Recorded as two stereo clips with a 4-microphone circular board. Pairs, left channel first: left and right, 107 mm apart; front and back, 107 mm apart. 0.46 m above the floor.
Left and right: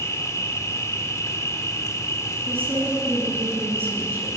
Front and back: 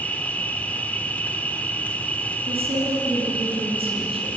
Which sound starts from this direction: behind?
A woman speaking, at 2.5 s.